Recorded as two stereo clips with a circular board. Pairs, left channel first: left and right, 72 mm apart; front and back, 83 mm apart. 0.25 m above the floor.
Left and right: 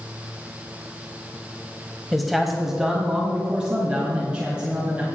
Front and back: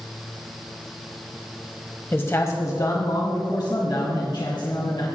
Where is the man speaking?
5° left, 0.9 m; by 5.1 s 20° right, 3 m.